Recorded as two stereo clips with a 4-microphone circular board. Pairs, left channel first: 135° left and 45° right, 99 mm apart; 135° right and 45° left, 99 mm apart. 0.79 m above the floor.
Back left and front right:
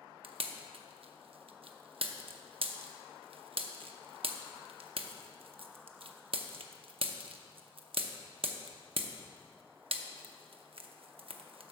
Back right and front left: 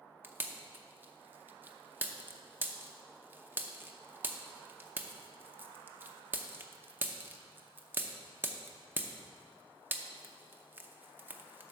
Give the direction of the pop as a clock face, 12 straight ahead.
1 o'clock.